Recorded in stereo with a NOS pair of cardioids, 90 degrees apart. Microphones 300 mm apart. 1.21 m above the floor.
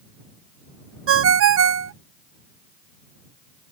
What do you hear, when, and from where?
1.1 s a ringtone: 50° right